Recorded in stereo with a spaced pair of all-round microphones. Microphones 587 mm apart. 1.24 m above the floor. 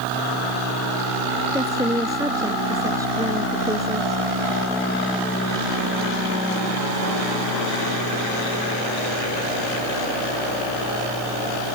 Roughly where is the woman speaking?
Centre.